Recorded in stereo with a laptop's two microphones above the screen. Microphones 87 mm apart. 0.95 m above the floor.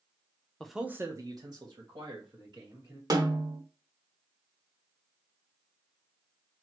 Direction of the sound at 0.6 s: 10° left (ahead or behind).